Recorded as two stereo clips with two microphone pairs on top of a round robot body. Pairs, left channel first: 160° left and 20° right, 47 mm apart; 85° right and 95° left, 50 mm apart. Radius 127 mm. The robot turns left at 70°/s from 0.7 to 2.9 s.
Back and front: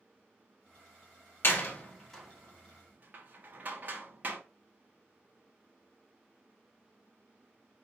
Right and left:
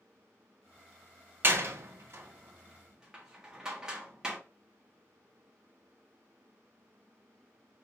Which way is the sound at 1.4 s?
130° left.